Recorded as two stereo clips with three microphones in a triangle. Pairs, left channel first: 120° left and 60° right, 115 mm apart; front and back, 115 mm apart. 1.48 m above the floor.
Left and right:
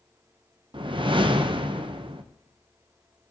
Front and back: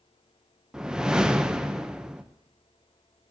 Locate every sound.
0.7 s a whoosh: 95° right, 0.6 m